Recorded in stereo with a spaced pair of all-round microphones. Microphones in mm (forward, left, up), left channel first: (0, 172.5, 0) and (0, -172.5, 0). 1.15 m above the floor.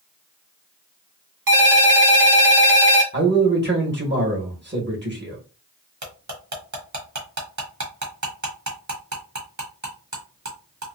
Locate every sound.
1.5 s a ringtone: 70° right (ahead or behind), 1.0 m
3.1 s a man speaking: 30° right (ahead or behind), 1.3 m
6.0 s cutlery clinking: 55° right (ahead or behind), 1.2 m